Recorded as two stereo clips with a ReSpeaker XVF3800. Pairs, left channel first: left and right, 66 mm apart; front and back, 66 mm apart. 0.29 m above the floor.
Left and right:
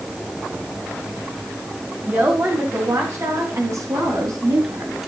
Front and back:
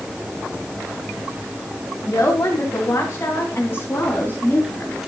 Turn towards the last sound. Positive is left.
turn(degrees=-65)